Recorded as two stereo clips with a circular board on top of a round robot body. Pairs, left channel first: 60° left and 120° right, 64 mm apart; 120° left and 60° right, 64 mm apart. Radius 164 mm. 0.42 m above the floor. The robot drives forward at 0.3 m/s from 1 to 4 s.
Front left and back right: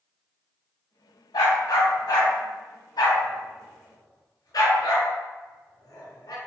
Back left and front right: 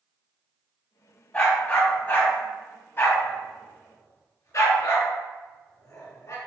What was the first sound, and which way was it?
A dog barking, 50° left.